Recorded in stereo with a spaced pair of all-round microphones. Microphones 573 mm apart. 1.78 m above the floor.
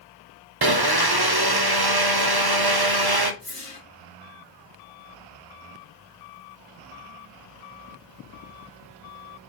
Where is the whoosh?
65° right (ahead or behind), 3 m.